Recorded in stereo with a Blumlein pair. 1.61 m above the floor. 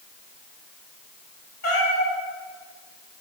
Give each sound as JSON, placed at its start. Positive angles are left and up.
{"t": 1.6, "sound": "a cat meowing", "azimuth_deg": 55, "distance_m": 3.5}